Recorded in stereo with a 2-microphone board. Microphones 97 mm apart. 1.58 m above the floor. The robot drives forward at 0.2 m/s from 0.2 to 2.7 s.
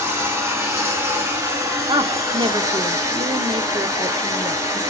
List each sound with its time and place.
0.0 s running water: 30° right (ahead or behind), 1.4 m; by 4.9 s 35° right (ahead or behind), 1.2 m
1.9 s a woman speaking: 55° right (ahead or behind), 0.5 m; by 4.8 s 50° right (ahead or behind), 0.5 m